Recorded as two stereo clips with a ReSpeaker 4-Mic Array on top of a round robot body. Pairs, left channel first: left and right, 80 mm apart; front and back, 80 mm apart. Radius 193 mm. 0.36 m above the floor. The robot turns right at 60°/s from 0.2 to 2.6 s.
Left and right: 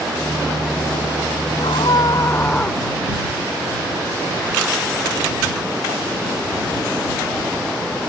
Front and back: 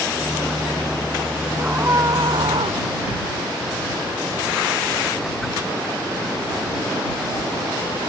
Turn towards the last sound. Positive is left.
turn(degrees=165)